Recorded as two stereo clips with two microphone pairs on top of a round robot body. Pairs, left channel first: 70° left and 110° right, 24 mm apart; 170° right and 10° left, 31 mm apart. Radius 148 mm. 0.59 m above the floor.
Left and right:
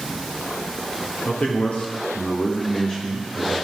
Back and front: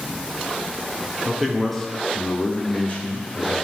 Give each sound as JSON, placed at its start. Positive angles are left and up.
{"t": 1.2, "sound": "a man speaking", "azimuth_deg": 90, "distance_m": 1.9}